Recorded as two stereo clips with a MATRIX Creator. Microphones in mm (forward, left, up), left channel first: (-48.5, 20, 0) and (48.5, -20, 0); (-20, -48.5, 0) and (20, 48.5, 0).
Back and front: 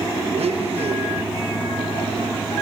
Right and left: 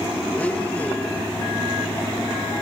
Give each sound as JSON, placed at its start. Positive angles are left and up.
{"t": 0.3, "sound": "a blender", "azimuth_deg": -35, "distance_m": 1.3}